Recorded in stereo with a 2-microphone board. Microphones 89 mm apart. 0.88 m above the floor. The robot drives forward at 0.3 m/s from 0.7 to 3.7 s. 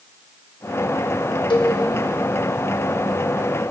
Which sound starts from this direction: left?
A cowbell, at 1.5 s.